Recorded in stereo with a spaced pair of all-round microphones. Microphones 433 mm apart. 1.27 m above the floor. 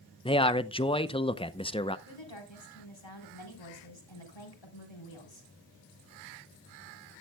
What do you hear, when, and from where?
0.2 s a man speaking: 15° left (ahead or behind), 0.6 m
2.1 s a woman speaking: 85° left, 4 m